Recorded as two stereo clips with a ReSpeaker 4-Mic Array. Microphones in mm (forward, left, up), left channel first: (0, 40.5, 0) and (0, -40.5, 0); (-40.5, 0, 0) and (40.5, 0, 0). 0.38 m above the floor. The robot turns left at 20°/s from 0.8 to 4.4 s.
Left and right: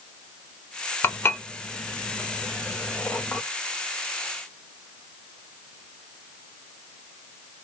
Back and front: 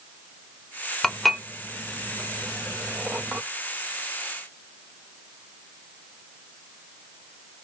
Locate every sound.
1.0 s dishes clattering: 100° left, 0.5 m; by 3.4 s 50° left, 0.5 m